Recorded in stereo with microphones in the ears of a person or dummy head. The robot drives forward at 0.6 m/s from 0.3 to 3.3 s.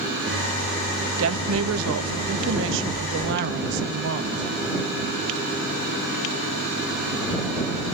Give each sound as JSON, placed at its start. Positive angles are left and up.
{"t": 1.2, "sound": "a woman speaking", "side_deg": -75, "distance_m": 1.7}